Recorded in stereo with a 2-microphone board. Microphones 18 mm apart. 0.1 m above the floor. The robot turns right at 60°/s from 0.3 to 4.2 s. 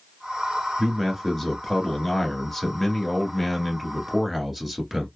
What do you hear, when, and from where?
0.8 s a man speaking: centre (ahead or behind), 1.3 m; by 5.1 s 10° right (ahead or behind), 1.3 m